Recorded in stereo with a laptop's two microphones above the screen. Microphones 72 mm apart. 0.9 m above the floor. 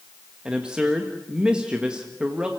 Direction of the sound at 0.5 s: 15° right (ahead or behind).